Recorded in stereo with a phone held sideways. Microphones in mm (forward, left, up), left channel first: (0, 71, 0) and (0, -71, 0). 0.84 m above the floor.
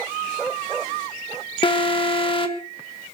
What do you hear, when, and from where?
1.6 s an alarm: 35° left (ahead or behind), 1.5 m